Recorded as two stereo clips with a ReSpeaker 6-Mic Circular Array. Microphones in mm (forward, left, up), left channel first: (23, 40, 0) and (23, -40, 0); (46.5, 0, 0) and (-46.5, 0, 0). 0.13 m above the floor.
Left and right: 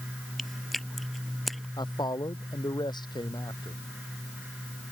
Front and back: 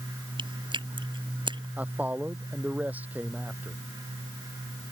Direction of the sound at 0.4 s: Straight behind.